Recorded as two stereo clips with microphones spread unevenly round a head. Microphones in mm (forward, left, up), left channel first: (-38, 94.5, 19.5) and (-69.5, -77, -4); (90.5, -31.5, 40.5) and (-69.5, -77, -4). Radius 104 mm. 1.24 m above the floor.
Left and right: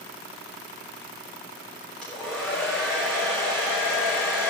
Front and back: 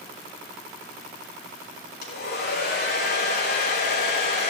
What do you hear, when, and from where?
2.0 s a hair dryer: 5° right, 3.5 m